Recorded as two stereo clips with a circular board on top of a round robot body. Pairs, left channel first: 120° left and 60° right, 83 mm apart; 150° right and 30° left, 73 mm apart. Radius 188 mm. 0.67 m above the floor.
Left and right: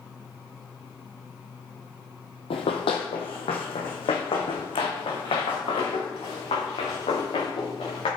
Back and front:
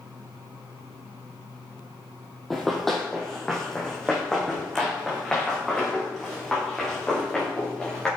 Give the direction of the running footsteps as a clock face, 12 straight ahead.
8 o'clock.